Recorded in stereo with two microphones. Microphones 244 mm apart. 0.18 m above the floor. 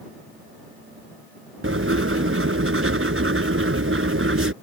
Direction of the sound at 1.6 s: 55° right (ahead or behind).